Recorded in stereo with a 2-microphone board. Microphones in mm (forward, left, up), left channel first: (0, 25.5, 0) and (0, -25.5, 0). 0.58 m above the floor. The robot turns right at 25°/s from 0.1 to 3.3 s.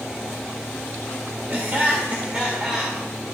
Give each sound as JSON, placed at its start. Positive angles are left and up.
{"t": 1.5, "sound": "laughter", "azimuth_deg": -45, "distance_m": 1.5}